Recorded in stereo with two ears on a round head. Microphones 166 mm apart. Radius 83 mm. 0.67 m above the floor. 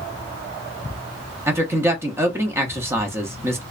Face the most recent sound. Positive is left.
turn(degrees=-15)  # may be behind; listen again after turning